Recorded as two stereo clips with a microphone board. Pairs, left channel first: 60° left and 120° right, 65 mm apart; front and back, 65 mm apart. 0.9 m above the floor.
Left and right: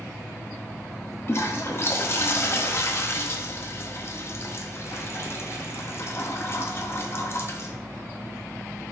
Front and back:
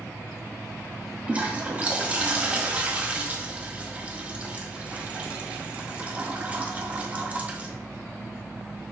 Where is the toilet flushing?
110° left, 0.6 m.